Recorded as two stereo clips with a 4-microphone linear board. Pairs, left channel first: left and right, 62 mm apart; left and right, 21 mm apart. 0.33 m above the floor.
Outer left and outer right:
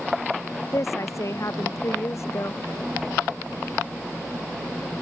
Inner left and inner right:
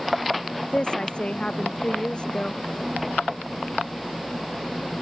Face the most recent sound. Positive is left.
turn(degrees=50)  # may be behind; listen again after turning